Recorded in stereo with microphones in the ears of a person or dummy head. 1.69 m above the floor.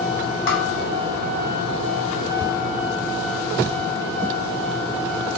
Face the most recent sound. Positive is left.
turn(degrees=65)  # may be behind; listen again after turning